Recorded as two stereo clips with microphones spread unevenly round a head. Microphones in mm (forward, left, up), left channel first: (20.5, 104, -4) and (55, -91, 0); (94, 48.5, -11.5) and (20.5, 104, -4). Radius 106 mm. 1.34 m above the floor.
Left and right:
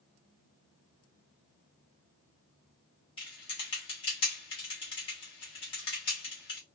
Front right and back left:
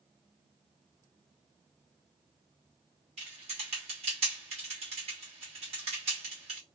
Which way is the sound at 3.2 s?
170° left.